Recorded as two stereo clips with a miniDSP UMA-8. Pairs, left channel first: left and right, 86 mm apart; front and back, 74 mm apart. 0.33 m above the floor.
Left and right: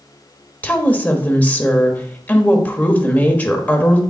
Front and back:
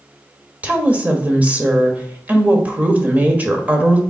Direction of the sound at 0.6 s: 140° left.